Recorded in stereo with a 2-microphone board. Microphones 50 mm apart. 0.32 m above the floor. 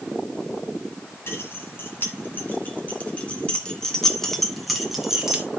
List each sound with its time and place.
1.3 s keys jangling: 50° left (ahead or behind), 2 m; by 5.5 s 15° right (ahead or behind), 1.7 m